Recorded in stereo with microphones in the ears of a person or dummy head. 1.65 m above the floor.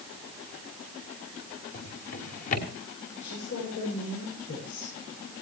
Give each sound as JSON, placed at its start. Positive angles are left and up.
{"t": 1.7, "sound": "a drawer", "side_deg": 45, "distance_m": 2.5}
{"t": 3.2, "sound": "a woman speaking", "side_deg": 70, "distance_m": 8.0}